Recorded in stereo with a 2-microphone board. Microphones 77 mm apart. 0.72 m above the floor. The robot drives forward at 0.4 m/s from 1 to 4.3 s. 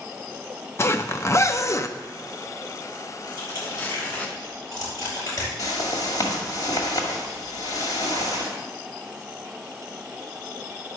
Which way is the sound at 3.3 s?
55° left (ahead or behind).